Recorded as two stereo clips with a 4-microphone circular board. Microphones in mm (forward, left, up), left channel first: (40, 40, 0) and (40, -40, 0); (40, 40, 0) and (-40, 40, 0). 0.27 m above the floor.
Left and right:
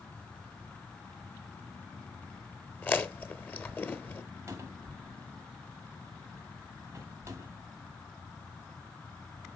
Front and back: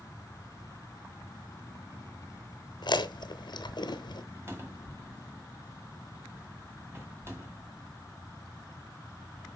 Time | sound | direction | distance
2.8 | chewing | 25° left | 0.9 m
4.5 | a cupboard door | 130° right | 1.8 m